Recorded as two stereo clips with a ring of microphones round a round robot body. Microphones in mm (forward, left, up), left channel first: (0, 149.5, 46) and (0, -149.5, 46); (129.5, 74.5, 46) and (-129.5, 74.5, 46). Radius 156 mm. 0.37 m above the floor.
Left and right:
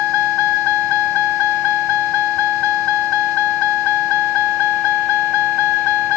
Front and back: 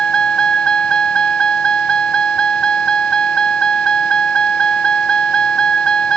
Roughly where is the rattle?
I don't hear a rattle.